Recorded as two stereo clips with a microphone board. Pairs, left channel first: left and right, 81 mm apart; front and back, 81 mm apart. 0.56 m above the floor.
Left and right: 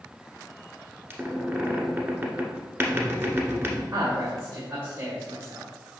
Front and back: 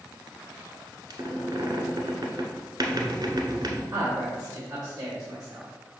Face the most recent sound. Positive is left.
turn(degrees=-125)